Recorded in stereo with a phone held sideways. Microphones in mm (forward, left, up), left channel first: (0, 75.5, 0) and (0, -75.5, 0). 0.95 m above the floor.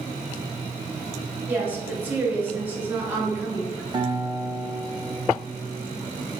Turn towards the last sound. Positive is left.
turn(degrees=-30)  # may be behind; listen again after turning